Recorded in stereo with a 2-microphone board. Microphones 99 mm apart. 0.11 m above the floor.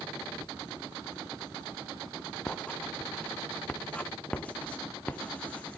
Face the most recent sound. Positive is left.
turn(degrees=10)  # may be behind; listen again after turning